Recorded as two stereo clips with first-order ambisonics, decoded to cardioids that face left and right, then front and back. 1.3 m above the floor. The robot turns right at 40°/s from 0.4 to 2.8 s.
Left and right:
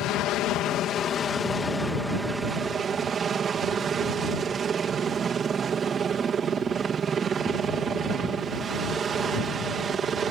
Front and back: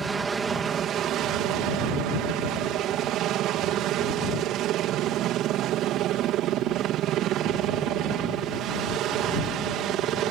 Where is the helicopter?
115° left; by 10.3 s 150° right.